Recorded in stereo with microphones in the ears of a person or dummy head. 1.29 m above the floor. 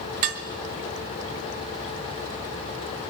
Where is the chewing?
No chewing in this recording.